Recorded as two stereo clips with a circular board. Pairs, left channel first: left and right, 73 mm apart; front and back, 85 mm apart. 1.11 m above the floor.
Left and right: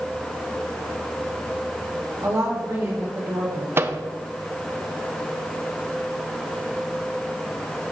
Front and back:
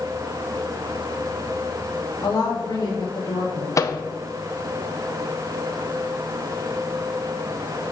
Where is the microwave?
40° right, 0.7 m.